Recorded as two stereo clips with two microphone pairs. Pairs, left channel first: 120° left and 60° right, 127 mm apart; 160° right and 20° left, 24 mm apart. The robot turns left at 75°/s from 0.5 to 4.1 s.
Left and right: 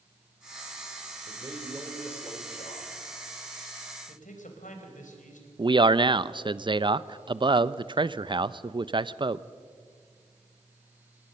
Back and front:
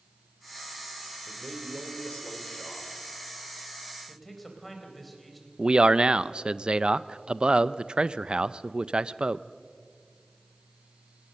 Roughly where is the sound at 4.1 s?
Behind left.